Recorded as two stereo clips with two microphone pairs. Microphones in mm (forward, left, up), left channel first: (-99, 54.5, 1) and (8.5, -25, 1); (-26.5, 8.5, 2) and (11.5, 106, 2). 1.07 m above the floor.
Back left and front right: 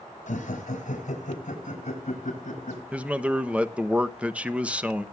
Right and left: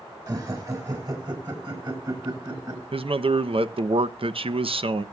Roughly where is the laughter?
Behind left.